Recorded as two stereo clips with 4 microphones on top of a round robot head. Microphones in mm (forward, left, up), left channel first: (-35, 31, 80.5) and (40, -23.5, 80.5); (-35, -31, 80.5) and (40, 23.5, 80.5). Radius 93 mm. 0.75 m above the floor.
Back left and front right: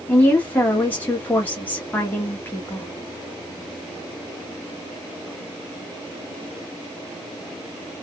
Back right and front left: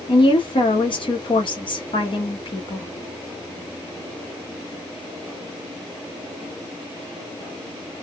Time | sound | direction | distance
0.1 | a woman speaking | 150° right | 1.3 m